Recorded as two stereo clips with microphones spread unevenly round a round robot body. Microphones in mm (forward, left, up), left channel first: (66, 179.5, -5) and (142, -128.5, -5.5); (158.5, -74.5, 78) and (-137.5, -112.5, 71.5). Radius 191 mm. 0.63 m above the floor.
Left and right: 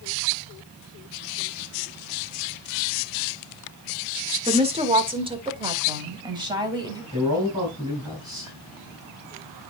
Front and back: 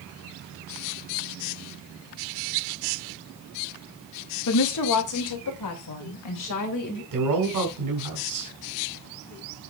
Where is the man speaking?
155° right, 3 m.